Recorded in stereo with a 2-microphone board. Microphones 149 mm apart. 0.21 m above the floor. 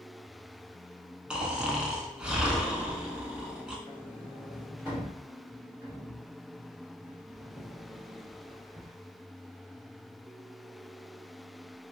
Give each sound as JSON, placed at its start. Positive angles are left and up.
{"t": 1.3, "sound": "snoring", "side_deg": -5, "distance_m": 0.5}
{"t": 3.9, "sound": "a sliding door", "side_deg": -10, "distance_m": 1.2}